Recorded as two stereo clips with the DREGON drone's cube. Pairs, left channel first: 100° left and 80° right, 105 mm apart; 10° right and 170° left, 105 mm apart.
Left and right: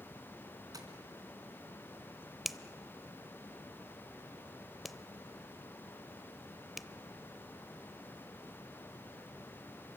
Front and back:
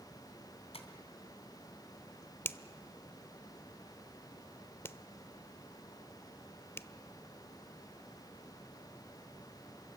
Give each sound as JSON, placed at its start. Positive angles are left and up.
{"t": 0.7, "sound": "tapping", "azimuth_deg": -25, "distance_m": 3.0}
{"t": 2.5, "sound": "a finger snap", "azimuth_deg": 5, "distance_m": 0.7}